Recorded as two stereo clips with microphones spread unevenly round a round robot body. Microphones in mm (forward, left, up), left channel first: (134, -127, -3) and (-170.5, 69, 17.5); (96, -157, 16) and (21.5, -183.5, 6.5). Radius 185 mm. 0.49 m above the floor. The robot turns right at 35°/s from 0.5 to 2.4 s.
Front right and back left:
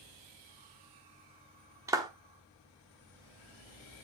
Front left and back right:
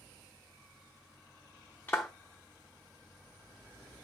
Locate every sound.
1.9 s a clap: 70° left, 1.0 m; by 2.1 s 75° left, 1.0 m